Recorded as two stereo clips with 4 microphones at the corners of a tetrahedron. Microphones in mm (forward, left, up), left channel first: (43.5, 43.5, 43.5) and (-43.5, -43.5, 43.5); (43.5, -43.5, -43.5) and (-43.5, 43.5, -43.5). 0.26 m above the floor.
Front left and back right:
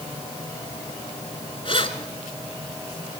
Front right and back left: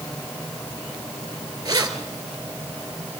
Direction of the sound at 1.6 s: 80° left.